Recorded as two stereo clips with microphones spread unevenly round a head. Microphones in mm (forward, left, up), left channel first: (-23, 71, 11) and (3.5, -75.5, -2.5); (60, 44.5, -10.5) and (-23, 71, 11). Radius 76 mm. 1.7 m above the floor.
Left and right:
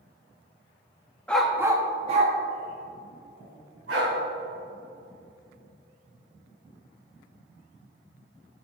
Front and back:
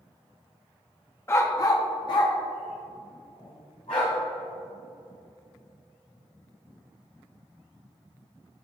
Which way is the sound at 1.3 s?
35° left.